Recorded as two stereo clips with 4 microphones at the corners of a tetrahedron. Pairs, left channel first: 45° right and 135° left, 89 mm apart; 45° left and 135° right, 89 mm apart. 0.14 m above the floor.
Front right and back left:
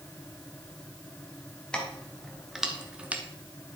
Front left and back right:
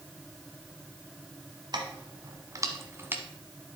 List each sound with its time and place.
1.7 s keys jangling: 125° right, 1.4 m; by 3.2 s straight behind, 1.0 m